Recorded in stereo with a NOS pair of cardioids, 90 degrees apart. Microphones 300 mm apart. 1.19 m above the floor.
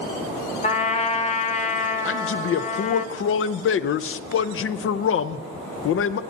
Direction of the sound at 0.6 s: 20° left.